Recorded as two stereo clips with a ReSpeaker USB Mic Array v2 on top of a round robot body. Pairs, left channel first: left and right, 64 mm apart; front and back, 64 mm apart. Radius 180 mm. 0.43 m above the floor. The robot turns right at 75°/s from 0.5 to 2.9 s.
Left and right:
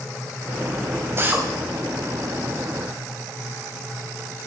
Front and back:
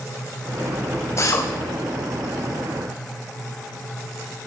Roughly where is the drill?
Ahead right.